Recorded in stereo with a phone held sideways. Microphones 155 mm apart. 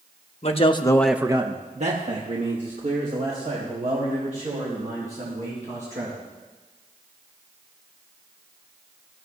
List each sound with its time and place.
0.4 s a man speaking: 45° left (ahead or behind), 1.3 m; by 6.2 s 65° right (ahead or behind), 8 m